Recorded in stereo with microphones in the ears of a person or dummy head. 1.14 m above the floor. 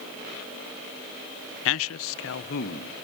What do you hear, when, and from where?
1.6 s a man speaking: 60° left (ahead or behind), 0.5 m; by 3.0 s 40° left (ahead or behind), 1.3 m